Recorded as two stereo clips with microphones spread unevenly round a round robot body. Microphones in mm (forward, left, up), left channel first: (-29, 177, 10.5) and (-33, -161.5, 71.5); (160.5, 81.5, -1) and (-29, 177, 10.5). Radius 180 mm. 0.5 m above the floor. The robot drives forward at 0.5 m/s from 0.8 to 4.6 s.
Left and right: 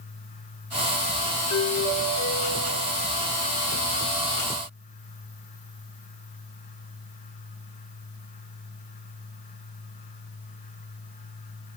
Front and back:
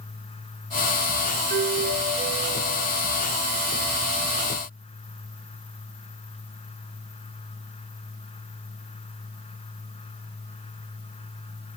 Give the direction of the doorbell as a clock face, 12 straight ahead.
8 o'clock.